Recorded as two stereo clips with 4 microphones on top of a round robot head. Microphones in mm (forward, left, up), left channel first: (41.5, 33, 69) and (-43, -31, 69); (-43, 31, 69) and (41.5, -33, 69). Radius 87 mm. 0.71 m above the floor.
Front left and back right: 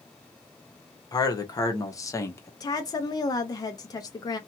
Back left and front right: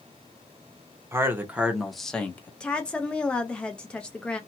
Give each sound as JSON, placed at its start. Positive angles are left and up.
{"t": 1.1, "sound": "a man speaking", "azimuth_deg": 15, "distance_m": 1.1}
{"t": 2.6, "sound": "a woman speaking", "azimuth_deg": 65, "distance_m": 0.6}